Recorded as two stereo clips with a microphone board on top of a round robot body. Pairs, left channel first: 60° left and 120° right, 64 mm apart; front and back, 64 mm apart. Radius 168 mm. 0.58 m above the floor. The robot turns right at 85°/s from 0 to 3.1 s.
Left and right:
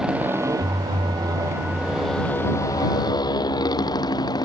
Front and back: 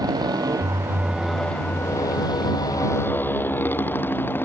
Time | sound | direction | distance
0.0 | a motorcycle | 160° left | ?